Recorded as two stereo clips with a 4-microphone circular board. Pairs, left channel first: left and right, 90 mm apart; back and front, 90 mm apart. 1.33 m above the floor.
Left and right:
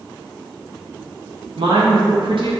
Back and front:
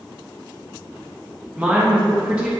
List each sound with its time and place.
1.6 s a woman speaking: 80° right, 1.7 m